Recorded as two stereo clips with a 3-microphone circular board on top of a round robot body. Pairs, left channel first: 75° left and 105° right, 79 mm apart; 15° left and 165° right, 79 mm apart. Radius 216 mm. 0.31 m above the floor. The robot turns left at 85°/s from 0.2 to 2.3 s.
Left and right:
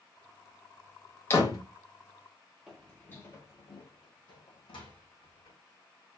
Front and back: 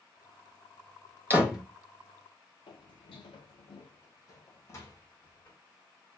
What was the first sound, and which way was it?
A door slam, 130° left.